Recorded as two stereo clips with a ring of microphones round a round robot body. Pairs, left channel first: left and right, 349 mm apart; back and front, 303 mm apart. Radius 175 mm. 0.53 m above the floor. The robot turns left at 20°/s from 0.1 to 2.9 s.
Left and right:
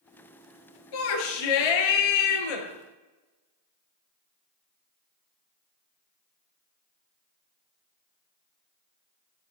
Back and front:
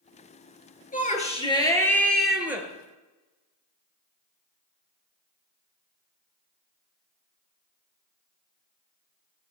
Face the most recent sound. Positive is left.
turn(degrees=75)